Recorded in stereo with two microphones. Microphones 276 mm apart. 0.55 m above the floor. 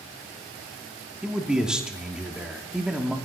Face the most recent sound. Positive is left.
turn(degrees=-5)  # may be behind; listen again after turning